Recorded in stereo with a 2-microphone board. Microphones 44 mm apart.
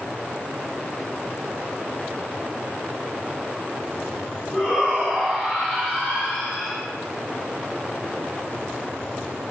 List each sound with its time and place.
4.5 s a shout: 25° right (ahead or behind), 3.5 m; by 6.8 s 10° right (ahead or behind), 2.5 m